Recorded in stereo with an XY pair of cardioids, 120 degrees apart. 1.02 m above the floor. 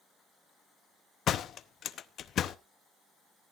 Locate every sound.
1.3 s a door slam: 55° left, 0.7 m